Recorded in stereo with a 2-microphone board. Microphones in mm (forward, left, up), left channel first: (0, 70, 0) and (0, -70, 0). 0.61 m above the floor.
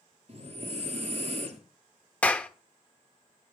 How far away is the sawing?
I don't hear sawing.